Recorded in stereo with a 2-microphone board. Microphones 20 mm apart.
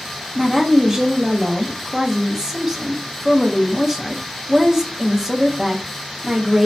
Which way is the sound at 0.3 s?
20° right (ahead or behind).